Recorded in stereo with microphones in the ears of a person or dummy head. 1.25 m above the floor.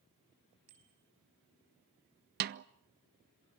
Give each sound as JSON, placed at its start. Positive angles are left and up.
{"t": 0.7, "sound": "a bicycle bell", "side_deg": -85, "distance_m": 6.0}
{"t": 2.4, "sound": "a snare drum", "side_deg": -45, "distance_m": 0.7}